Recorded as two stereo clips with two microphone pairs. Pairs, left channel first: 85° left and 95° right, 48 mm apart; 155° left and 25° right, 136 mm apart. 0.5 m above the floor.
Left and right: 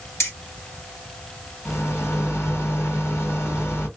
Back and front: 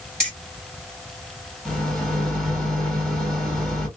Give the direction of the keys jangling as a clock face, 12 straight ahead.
10 o'clock.